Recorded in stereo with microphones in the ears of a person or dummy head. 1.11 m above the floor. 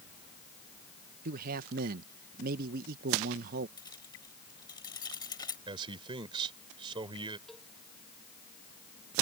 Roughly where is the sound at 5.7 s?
Right.